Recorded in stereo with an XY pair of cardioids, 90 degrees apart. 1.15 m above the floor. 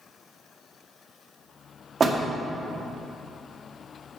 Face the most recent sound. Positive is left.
turn(degrees=-45)